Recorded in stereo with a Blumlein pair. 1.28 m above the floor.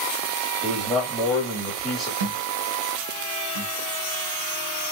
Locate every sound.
0.6 s a man speaking: straight ahead, 2.5 m
2.2 s a thud: 65° right, 1.6 m